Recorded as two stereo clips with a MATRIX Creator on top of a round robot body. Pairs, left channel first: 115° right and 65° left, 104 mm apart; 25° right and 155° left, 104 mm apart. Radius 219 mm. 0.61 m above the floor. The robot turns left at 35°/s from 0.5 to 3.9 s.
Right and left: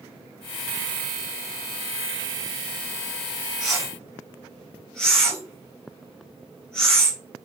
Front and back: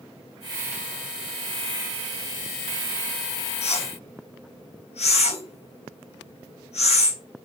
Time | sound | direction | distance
3.6 | a whoosh | 20° right | 3.5 m